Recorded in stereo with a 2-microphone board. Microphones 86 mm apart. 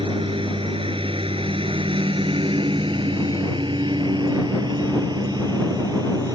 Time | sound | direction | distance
0.0 | a lawn mower | 75° right (ahead or behind) | ?